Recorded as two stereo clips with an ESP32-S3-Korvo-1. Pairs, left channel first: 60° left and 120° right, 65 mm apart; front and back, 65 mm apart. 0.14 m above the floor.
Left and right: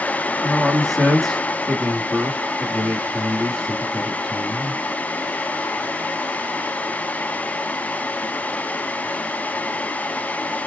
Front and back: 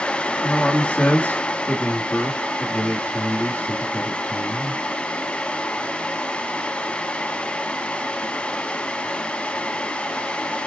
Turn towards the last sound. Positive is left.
turn(degrees=-25)